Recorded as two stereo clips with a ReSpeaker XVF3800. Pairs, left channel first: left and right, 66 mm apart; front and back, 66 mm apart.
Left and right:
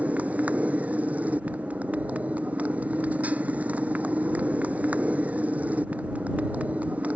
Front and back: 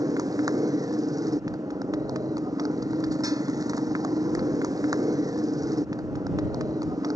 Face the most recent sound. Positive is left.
turn(degrees=-160)